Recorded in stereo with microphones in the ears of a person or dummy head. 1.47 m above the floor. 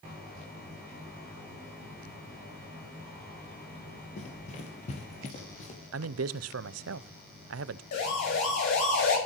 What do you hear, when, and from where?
4.2 s running footsteps: 40° left (ahead or behind), 2 m
5.9 s a man speaking: 80° right, 0.7 m
7.9 s a siren: 55° left (ahead or behind), 6 m; by 9.2 s 70° left (ahead or behind), 6.5 m